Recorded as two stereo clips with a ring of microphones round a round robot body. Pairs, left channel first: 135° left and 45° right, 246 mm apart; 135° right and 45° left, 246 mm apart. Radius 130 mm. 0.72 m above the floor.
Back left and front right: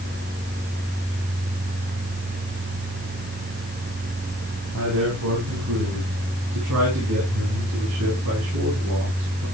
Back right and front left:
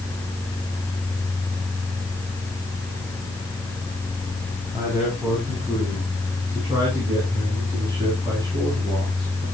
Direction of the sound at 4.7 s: 35° right.